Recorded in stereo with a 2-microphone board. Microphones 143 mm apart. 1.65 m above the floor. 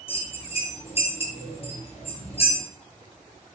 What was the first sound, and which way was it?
A bell, 45° left (ahead or behind).